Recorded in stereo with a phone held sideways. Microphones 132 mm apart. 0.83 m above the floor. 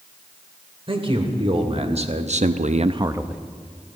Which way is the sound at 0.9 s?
40° right (ahead or behind).